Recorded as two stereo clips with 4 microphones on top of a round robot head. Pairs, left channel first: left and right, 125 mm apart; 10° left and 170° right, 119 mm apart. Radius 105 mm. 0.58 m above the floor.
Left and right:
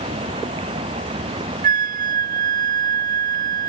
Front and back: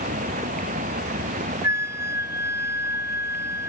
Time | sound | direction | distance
0.0 | running water | 145° right | ?
1.6 | a flute | 100° right | ?